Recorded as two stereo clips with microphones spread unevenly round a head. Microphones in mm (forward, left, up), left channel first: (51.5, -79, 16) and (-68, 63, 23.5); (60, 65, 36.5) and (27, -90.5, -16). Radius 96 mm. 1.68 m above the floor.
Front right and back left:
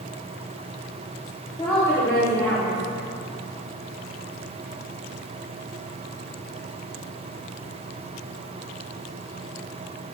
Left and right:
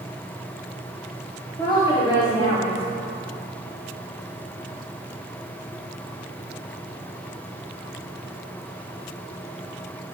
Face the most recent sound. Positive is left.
turn(degrees=25)